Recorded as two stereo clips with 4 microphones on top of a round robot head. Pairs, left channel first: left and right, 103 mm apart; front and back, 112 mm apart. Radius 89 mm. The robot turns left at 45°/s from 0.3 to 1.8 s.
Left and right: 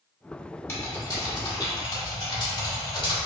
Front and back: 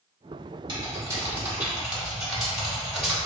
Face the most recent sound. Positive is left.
turn(degrees=95)